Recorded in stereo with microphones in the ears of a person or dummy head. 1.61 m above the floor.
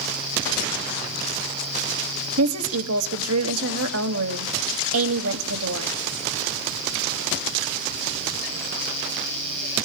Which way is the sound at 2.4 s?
80° right.